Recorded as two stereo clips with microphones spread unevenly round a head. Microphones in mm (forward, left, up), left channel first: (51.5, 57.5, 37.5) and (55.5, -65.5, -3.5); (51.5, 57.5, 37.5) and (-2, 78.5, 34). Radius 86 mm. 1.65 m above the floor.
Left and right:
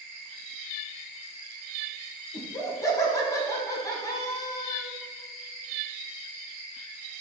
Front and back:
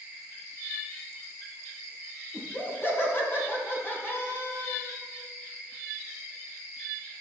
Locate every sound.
2.3 s laughter: 30° left, 2.5 m